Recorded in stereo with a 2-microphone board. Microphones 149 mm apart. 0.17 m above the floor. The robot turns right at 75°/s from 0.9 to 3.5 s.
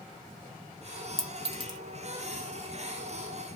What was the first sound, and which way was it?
A clink, 40° right (ahead or behind).